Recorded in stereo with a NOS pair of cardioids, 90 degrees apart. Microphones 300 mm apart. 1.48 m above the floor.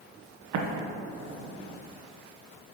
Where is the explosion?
65° right, 1.0 m.